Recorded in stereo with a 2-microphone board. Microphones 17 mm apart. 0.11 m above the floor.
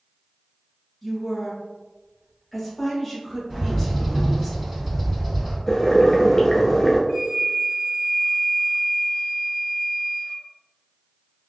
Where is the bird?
25° right (ahead or behind), 1.9 m.